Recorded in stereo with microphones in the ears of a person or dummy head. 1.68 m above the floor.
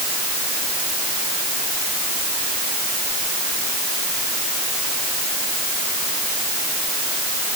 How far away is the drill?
I don't hear a drill.